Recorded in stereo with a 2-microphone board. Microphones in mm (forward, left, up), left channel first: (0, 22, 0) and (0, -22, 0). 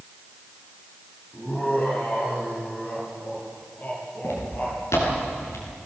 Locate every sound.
1.3 s laughter: 40° left (ahead or behind), 7 m
4.2 s footsteps: 80° left, 6.5 m